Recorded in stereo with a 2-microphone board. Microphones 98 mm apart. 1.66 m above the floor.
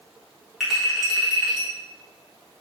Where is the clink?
5° right (ahead or behind), 2.5 m.